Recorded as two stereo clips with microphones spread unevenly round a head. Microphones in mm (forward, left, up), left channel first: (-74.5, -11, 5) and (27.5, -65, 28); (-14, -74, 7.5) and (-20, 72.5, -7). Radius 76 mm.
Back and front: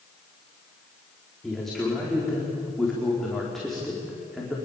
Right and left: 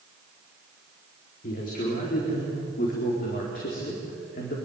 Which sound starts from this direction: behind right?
A man speaking, at 1.4 s.